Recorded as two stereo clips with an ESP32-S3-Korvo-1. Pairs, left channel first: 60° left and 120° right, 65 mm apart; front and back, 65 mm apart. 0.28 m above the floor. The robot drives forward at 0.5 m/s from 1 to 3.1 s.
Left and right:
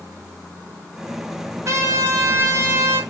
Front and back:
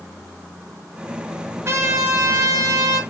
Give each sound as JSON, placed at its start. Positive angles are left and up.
{"t": 1.6, "sound": "a trumpet", "azimuth_deg": -145, "distance_m": 1.0}